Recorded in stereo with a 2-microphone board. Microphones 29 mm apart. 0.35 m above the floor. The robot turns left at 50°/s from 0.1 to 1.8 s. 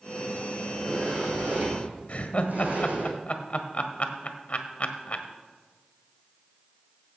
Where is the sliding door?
10° right, 3.5 m; by 3.1 s 65° right, 3.5 m.